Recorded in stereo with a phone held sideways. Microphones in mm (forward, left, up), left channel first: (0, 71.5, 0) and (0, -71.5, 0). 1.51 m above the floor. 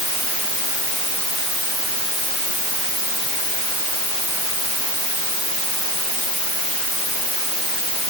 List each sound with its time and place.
Only background noise.